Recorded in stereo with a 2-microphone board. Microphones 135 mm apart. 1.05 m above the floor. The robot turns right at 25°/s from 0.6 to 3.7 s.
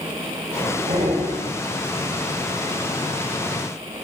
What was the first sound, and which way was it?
Breathing, 85° right.